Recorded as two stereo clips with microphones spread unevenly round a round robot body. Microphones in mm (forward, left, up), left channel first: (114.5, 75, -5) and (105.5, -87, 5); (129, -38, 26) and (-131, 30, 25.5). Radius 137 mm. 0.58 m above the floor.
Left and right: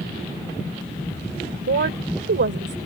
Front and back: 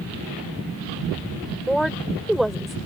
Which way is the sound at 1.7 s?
105° right.